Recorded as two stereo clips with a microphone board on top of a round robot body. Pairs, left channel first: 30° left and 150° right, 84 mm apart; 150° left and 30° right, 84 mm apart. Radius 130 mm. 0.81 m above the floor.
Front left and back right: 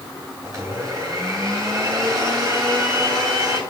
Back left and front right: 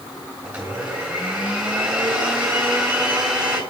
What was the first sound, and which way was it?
A blender, 105° right.